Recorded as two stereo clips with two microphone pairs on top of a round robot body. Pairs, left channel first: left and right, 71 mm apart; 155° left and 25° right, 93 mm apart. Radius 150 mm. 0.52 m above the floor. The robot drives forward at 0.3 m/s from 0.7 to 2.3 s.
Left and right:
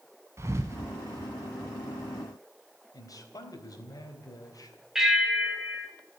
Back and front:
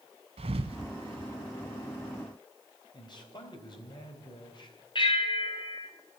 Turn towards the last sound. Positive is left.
turn(degrees=-175)